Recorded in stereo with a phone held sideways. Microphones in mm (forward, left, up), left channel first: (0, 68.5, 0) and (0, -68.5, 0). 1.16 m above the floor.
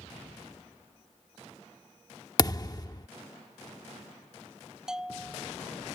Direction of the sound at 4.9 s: 5° right (ahead or behind).